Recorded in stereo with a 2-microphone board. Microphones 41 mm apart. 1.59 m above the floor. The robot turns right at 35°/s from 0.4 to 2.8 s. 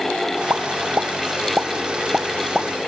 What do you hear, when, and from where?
0.5 s a pop: 70° right (ahead or behind), 1.0 m; by 2.7 s centre (ahead or behind), 1.0 m